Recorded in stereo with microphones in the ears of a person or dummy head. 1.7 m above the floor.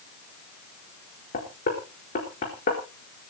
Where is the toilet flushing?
No toilet flushing in this recording.